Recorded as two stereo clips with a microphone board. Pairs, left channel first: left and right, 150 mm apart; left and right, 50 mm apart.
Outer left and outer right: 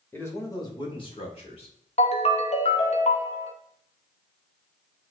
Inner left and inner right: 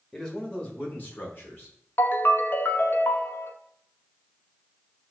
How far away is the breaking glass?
No breaking glass in this recording.